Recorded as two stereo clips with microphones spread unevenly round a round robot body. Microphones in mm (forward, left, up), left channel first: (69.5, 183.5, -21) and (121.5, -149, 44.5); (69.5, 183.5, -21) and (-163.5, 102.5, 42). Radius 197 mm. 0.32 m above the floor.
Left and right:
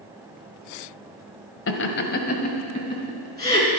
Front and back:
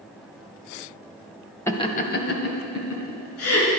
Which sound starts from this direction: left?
Laughter, at 1.7 s.